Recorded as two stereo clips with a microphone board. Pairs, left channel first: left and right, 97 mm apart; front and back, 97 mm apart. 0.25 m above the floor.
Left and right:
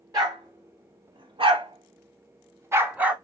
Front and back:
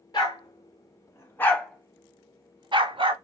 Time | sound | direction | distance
0.1 | a dog barking | 40° right | 1.4 m